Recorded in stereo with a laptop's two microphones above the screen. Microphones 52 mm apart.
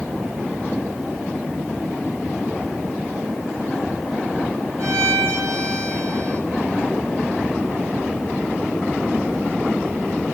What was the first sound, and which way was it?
A violin, 70° right (ahead or behind).